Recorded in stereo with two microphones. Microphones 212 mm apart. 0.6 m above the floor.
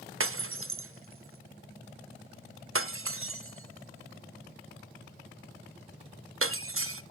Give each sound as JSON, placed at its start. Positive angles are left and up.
{"t": 0.2, "sound": "breaking glass", "side_deg": -80, "distance_m": 0.6}